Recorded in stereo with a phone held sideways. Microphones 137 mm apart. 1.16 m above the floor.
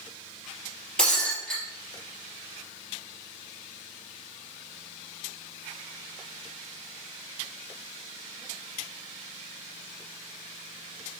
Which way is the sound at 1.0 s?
5° left (ahead or behind).